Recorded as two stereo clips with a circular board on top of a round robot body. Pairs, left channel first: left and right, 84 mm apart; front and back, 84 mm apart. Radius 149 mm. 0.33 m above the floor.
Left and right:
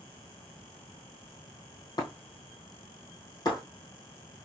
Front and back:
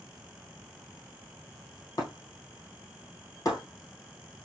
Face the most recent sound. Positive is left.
turn(degrees=50)